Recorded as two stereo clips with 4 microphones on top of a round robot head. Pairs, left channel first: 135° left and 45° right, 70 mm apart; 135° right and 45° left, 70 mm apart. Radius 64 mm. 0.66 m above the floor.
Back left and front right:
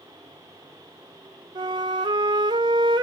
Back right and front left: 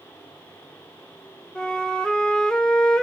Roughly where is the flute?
Ahead right.